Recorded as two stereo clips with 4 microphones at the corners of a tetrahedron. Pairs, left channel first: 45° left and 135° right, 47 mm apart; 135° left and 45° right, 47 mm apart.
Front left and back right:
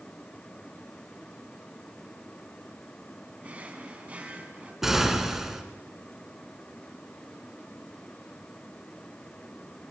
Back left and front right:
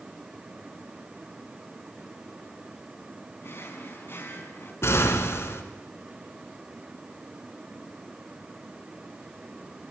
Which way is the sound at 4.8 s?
140° left.